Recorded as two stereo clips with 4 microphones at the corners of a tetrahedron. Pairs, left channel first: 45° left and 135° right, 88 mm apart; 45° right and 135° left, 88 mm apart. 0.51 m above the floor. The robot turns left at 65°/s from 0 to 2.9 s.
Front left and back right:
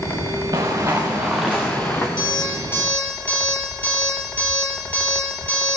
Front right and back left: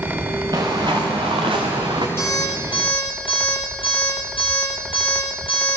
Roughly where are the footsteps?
Behind.